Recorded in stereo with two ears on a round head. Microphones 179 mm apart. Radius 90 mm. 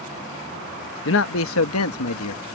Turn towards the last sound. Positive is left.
turn(degrees=85)